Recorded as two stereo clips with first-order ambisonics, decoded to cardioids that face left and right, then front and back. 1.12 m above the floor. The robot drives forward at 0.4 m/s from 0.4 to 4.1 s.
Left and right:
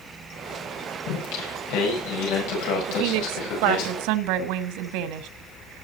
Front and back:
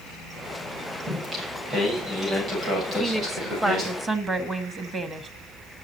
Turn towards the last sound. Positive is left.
turn(degrees=-110)